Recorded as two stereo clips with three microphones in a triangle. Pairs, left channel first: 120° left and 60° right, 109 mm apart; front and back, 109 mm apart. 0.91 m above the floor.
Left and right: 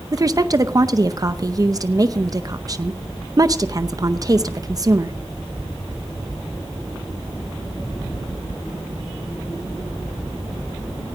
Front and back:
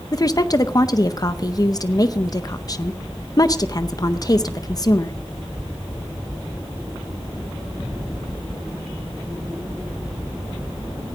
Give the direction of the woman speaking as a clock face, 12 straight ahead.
1 o'clock.